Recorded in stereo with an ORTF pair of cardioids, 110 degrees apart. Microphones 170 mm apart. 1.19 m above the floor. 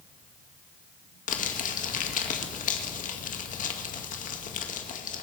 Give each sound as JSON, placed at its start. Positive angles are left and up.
{"t": 1.3, "sound": "crumpling", "azimuth_deg": 50, "distance_m": 1.8}